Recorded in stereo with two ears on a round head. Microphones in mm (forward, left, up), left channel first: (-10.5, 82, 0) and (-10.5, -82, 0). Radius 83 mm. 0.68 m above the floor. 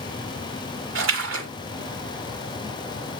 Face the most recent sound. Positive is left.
turn(degrees=-75)  # may be behind; listen again after turning